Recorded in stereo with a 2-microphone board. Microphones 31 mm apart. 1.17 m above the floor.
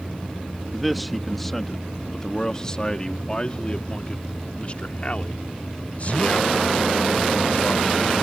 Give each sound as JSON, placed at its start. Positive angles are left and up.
{"t": 0.7, "sound": "a man speaking", "side_deg": -5}